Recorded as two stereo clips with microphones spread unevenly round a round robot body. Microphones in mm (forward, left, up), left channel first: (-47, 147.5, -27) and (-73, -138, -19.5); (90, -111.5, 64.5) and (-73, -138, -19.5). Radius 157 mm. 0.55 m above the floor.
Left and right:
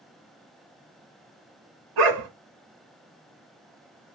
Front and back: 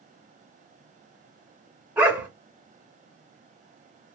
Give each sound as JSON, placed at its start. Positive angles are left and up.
{"t": 2.0, "sound": "a dog barking", "azimuth_deg": -85, "distance_m": 1.1}